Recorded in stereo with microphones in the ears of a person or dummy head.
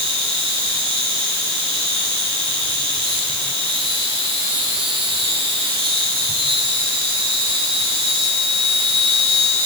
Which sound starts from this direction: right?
An insect, at 0.0 s.